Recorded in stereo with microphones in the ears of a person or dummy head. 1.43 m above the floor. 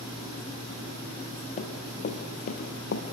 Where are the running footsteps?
35° left (ahead or behind), 2.5 m; by 3.0 s 50° left (ahead or behind), 2.5 m.